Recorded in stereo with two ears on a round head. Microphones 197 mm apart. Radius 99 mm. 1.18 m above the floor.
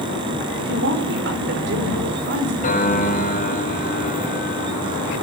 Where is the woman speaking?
55° right (ahead or behind), 4.5 m.